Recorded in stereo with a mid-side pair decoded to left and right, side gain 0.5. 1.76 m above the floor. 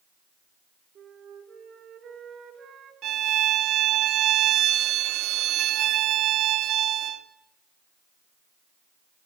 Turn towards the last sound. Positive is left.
turn(degrees=-65)